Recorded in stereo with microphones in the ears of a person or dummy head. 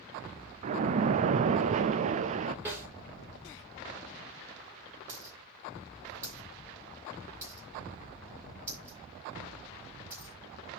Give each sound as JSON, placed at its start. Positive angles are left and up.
{"t": 0.6, "sound": "a splash", "side_deg": -40, "distance_m": 0.6}
{"t": 2.6, "sound": "a snare drum", "side_deg": -15, "distance_m": 5.5}
{"t": 5.1, "sound": "a dropped coin", "side_deg": -15, "distance_m": 5.0}